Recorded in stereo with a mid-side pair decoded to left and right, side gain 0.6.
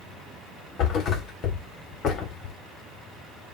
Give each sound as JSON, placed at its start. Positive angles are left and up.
{"t": 0.8, "sound": "a thud", "azimuth_deg": 55, "distance_m": 2.5}